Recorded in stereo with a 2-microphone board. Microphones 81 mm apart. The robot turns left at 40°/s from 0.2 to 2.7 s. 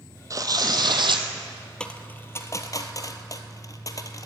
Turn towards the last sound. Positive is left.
turn(degrees=45)  # may be behind; listen again after turning